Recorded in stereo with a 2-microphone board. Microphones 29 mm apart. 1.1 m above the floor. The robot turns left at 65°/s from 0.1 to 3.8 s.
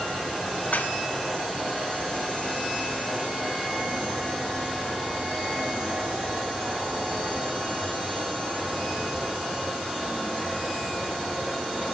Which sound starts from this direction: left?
Dishes clattering, at 0.7 s.